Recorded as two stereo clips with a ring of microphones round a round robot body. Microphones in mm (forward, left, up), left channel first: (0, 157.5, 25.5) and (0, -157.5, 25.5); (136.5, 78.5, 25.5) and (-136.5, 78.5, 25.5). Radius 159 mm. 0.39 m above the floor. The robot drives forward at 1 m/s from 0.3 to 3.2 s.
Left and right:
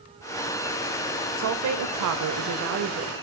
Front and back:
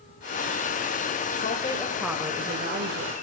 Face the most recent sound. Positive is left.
turn(degrees=-140)